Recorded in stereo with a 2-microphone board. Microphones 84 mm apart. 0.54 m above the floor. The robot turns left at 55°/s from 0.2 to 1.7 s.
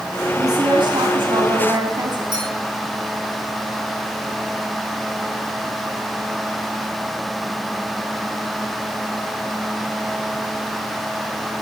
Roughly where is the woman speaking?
Ahead right.